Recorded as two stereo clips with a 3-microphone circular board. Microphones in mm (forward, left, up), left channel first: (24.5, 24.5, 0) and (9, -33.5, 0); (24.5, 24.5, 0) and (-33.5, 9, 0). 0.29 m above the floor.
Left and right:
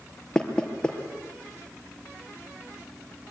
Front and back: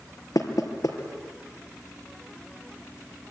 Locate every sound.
0.3 s knocking: straight ahead, 4 m